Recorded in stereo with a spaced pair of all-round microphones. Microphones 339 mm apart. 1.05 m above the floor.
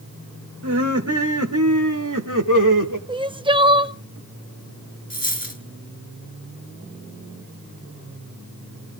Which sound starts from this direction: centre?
Crying, at 3.1 s.